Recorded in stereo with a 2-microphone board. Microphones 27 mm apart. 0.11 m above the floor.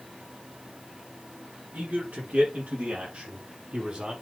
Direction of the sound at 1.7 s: 60° right (ahead or behind).